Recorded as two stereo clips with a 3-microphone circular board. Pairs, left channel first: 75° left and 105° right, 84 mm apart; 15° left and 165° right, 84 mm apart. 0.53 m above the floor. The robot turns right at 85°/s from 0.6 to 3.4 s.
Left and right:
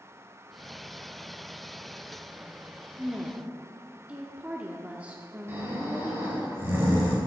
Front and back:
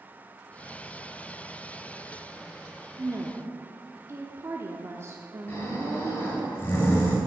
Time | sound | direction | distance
3.0 | a woman speaking | 165° left | 0.7 m
5.5 | snoring | 45° right | 3.5 m